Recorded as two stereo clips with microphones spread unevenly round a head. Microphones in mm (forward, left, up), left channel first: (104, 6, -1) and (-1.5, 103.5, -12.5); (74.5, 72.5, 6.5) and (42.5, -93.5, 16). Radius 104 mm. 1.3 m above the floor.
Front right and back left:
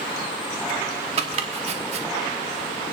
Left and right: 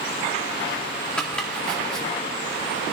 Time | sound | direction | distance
1.2 | chopping | 165° left | 1.0 m